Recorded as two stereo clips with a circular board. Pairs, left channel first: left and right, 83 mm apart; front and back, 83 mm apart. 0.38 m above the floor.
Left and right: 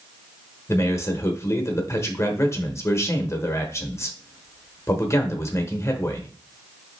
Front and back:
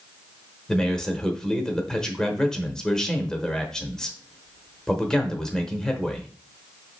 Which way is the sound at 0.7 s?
75° left.